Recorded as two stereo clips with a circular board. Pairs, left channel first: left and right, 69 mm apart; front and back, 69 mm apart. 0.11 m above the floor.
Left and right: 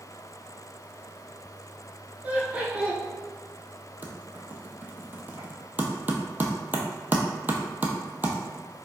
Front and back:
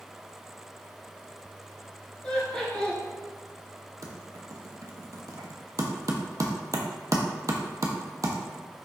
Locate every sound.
2.2 s laughter: 55° right, 1.3 m
4.0 s typing on a keyboard: 150° right, 0.6 m